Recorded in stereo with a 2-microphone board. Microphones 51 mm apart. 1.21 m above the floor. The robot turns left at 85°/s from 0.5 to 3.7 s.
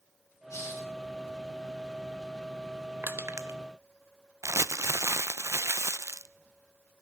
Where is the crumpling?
70° right (ahead or behind), 0.6 m.